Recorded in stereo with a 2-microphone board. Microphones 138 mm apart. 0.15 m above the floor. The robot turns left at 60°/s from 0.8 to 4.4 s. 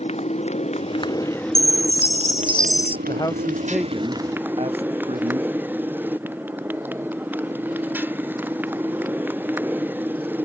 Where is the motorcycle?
50° left; by 10.4 s 165° right.